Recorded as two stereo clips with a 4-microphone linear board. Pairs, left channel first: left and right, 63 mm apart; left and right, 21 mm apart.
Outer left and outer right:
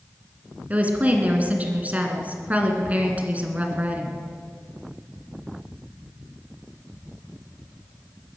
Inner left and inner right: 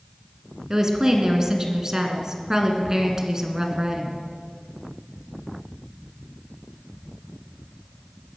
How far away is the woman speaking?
About 2 m.